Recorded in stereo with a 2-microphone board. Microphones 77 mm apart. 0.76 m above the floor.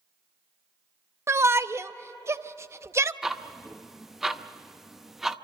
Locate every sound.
1.3 s a shout: 35° right (ahead or behind), 0.7 m
3.2 s ticking: 5° right (ahead or behind), 0.7 m